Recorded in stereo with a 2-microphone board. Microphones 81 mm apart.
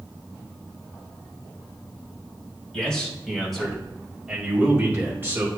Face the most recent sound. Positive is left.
turn(degrees=-30)  # may be behind; listen again after turning